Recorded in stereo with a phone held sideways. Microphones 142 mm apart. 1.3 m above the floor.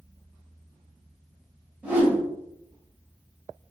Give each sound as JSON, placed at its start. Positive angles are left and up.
{"t": 1.8, "sound": "a whoosh", "side_deg": -10, "distance_m": 1.7}